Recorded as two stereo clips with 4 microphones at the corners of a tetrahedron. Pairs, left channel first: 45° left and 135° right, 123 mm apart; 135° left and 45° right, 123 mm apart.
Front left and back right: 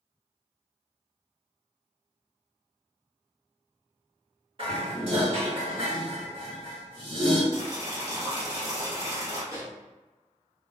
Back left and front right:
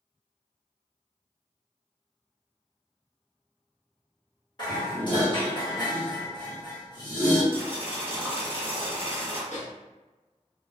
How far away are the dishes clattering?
About 1.1 m.